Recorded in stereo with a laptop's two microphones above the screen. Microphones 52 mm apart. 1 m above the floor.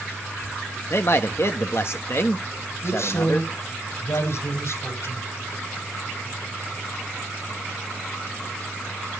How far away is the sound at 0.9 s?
About 1.3 m.